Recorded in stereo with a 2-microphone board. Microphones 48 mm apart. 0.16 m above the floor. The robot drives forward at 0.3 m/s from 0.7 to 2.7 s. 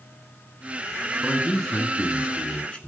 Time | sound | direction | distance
1.2 | a man speaking | 20° left (ahead or behind) | 1.2 m